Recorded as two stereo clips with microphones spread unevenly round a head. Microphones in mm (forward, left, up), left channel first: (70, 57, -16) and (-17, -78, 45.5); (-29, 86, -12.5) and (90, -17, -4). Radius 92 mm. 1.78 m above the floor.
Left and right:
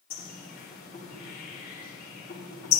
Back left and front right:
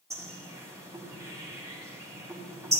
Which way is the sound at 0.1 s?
30° left.